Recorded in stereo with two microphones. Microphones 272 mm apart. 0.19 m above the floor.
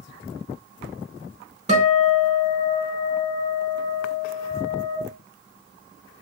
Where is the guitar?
25° right (ahead or behind), 0.7 m.